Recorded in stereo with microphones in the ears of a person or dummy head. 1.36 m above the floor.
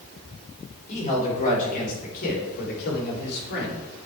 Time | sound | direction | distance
0.9 | a man speaking | 35° left (ahead or behind) | 4 m